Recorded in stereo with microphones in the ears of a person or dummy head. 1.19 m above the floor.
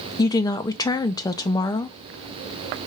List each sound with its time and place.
0.2 s a woman speaking: 15° left (ahead or behind), 0.5 m